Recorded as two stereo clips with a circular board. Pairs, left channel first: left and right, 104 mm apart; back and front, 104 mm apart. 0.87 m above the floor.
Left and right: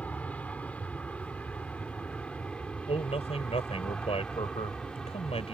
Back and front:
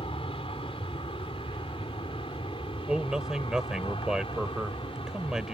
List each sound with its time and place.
0.0 s an aircraft: 165° left; by 5.5 s 175° left
2.9 s a man speaking: 85° left